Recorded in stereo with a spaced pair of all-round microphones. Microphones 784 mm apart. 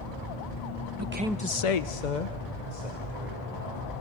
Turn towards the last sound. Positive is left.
turn(degrees=55)  # may be behind; listen again after turning